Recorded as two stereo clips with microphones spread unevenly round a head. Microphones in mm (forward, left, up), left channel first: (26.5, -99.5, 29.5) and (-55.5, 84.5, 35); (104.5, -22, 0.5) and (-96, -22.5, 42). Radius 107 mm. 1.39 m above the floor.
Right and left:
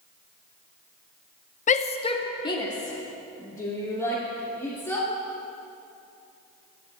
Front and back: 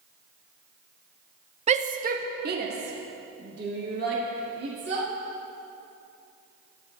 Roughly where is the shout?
Behind right.